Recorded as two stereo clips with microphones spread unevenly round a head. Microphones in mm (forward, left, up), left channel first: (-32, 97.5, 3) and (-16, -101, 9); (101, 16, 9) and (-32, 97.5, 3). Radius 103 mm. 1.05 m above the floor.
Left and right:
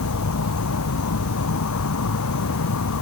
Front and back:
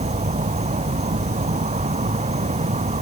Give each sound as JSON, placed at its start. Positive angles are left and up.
{"t": 0.0, "sound": "an insect", "azimuth_deg": 100}